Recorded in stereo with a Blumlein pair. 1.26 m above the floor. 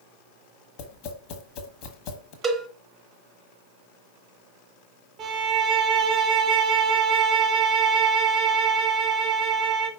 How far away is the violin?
About 0.9 m.